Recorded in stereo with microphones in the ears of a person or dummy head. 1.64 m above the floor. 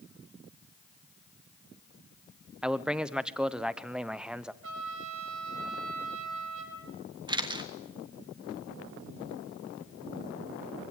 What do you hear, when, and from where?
2.6 s a man speaking: 10° right (ahead or behind), 0.9 m
4.6 s a trumpet: 70° right (ahead or behind), 6.5 m
7.3 s a camera shutter: 25° right (ahead or behind), 1.5 m